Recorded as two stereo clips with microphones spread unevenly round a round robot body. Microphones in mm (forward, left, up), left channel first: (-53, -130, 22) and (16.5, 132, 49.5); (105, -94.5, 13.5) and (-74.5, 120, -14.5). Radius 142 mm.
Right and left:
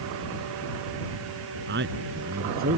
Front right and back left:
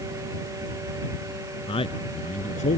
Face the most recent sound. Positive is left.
turn(degrees=15)